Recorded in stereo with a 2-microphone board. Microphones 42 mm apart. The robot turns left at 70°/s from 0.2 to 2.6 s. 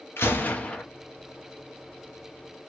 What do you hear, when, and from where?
0.2 s a gunshot: 65° left, 1.1 m; by 0.8 s 20° left, 1.1 m